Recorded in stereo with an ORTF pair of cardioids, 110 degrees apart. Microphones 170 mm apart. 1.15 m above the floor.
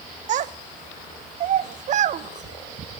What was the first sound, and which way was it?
A child speaking, 50° right.